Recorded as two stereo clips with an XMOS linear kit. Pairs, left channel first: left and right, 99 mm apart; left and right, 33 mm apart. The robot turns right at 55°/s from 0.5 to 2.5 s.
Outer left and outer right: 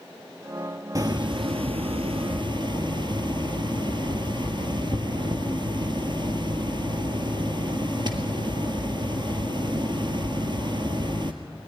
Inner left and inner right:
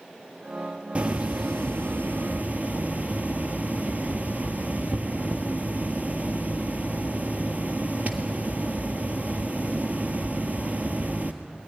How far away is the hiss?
About 1.5 m.